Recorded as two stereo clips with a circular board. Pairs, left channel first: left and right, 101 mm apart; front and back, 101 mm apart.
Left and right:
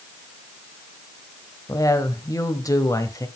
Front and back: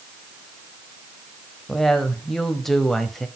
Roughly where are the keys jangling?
No keys jangling in this recording.